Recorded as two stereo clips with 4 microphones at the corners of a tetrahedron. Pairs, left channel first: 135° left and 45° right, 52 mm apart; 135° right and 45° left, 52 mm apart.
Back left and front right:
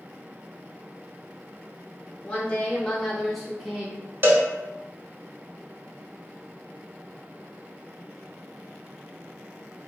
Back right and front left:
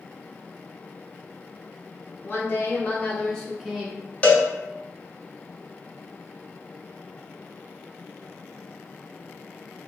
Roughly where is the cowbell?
Right.